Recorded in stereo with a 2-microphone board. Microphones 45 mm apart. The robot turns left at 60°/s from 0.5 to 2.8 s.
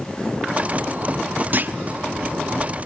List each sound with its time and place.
1.5 s a clunk: 45° right (ahead or behind), 0.6 m